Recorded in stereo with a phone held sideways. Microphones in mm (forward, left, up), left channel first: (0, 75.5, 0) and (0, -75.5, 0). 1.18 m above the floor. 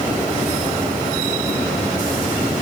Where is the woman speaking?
No woman speaking in this recording.